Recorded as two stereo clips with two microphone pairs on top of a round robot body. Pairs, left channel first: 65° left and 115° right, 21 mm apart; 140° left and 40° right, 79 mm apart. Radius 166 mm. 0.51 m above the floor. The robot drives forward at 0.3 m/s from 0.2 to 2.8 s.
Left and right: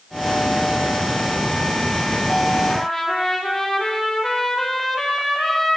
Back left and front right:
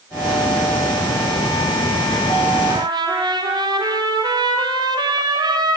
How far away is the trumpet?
About 7 m.